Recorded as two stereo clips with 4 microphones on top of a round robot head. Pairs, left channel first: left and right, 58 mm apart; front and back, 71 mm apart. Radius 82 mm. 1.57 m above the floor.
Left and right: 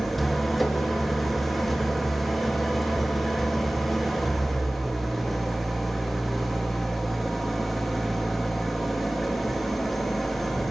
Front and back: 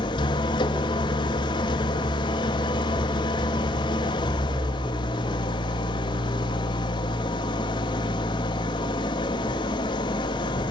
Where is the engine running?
Straight ahead, 2 m.